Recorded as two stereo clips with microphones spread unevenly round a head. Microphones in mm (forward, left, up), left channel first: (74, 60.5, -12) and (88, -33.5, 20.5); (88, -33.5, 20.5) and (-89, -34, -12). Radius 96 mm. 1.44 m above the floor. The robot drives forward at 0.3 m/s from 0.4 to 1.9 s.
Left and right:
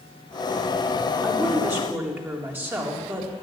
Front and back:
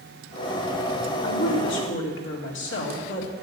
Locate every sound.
1.2 s a woman speaking: 10° right, 3.5 m; by 3.3 s 15° right, 3.5 m